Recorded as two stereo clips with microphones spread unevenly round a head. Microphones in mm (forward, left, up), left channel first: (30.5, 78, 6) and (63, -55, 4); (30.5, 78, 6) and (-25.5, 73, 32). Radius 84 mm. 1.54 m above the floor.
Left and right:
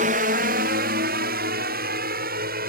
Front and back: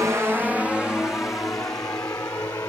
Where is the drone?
105° right; by 2.7 s 65° right.